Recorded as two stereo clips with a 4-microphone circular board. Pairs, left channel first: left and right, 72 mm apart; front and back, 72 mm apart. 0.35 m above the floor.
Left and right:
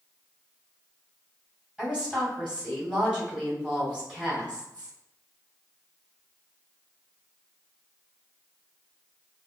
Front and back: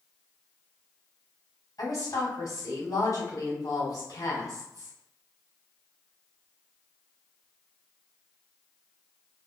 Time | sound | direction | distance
1.8 | a woman speaking | 15° right | 2.0 m